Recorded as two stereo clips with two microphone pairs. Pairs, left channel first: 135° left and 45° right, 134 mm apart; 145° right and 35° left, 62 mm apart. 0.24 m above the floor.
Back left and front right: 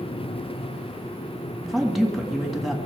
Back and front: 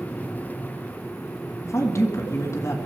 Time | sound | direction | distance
1.6 | a woman speaking | 135° right | 1.7 m